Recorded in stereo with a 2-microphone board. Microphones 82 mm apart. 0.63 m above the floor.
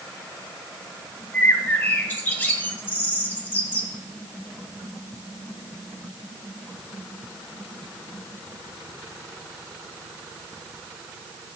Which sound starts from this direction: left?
A bird, at 1.3 s.